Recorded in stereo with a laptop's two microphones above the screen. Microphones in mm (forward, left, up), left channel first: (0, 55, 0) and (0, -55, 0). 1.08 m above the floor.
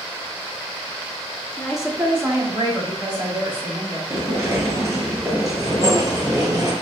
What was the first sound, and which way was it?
A woman speaking, 10° left (ahead or behind).